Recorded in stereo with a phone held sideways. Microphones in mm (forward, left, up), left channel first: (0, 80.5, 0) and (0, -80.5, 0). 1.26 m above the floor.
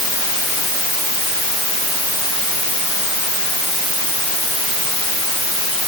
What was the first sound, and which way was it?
Only background noise.